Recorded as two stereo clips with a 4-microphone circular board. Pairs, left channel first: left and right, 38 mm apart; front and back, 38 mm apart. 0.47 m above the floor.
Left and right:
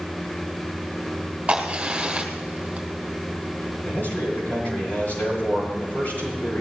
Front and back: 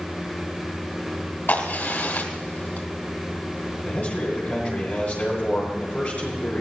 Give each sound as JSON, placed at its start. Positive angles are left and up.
{"t": 1.5, "sound": "a crack", "azimuth_deg": -25, "distance_m": 2.5}
{"t": 3.8, "sound": "a man speaking", "azimuth_deg": 50, "distance_m": 8.5}